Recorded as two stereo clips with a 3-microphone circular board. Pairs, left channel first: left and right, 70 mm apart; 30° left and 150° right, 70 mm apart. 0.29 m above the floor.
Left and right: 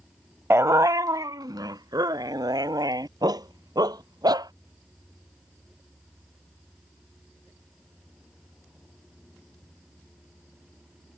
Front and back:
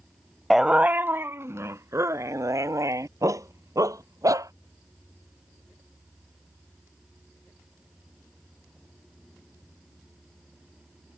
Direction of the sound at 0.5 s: 60° right.